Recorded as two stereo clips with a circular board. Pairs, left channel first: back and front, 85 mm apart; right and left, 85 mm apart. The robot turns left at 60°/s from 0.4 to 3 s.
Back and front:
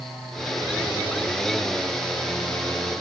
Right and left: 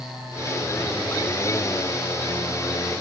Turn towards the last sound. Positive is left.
No sound to turn to.